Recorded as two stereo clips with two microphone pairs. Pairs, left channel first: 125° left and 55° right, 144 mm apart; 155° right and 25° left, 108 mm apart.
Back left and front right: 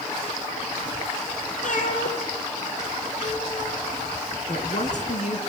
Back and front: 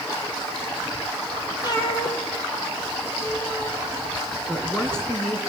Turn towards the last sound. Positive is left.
turn(degrees=125)